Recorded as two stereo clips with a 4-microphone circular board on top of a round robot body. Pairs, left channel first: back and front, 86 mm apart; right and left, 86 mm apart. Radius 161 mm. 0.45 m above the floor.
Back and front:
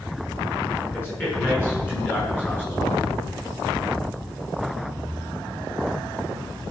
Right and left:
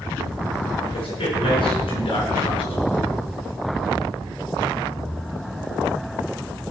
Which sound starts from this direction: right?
A man speaking, at 0.8 s.